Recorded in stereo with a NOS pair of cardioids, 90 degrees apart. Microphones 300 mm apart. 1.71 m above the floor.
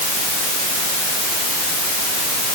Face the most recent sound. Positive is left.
No sound to turn to.